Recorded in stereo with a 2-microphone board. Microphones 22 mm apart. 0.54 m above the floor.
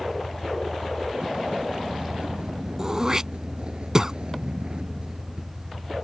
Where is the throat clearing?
25° right (ahead or behind).